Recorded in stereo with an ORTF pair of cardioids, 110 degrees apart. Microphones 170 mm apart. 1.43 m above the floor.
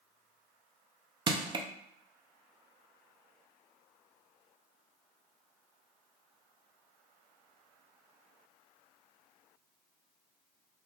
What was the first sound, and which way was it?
Crushing, 25° right.